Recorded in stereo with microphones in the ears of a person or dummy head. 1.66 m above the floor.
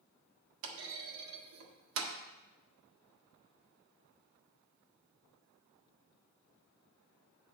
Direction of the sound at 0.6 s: 70° right (ahead or behind).